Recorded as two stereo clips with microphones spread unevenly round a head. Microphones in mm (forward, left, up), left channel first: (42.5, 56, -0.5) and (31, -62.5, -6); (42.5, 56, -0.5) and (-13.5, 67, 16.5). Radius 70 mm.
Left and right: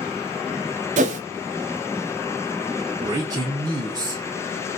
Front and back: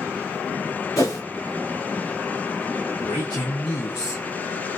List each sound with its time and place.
1.0 s a whoosh: 75° right, 0.6 m
3.0 s a man speaking: 35° right, 0.7 m